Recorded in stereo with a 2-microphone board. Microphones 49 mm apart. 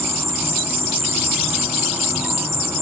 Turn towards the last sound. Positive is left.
turn(degrees=-85)